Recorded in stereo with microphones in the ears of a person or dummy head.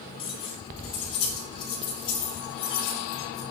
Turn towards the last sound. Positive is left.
turn(degrees=30)  # may be behind; listen again after turning